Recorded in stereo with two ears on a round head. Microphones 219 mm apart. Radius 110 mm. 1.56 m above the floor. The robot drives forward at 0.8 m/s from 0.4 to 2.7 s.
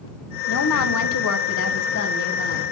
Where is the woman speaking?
60° left (ahead or behind), 1.0 m; by 2.6 s 35° left (ahead or behind), 1.6 m.